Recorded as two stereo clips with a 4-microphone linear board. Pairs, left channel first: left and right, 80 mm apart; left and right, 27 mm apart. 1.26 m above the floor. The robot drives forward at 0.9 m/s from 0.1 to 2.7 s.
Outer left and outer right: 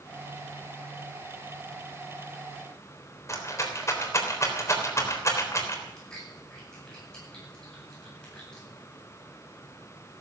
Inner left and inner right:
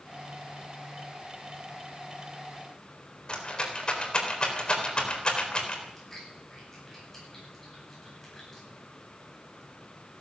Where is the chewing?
10° left (ahead or behind), 9.5 m.